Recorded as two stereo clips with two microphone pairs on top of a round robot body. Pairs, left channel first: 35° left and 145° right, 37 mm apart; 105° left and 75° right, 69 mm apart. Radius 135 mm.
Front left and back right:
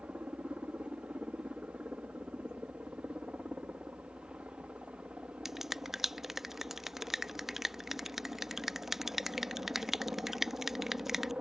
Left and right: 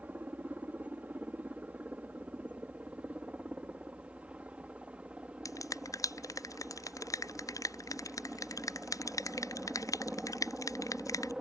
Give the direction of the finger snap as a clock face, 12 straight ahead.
8 o'clock.